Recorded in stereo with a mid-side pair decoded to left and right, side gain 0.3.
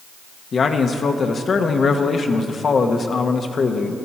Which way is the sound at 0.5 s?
60° left.